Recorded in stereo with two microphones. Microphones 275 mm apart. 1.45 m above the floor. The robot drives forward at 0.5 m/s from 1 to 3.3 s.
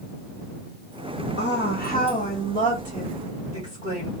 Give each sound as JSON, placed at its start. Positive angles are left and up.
{"t": 1.4, "sound": "a woman speaking", "side_deg": 45, "distance_m": 0.7}